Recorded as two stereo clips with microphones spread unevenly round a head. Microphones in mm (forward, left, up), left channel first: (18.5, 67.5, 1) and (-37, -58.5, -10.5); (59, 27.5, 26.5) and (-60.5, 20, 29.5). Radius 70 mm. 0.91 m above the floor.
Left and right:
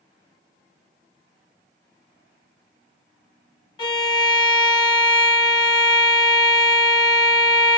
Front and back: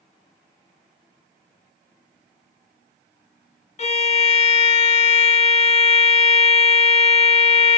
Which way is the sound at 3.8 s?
5° left.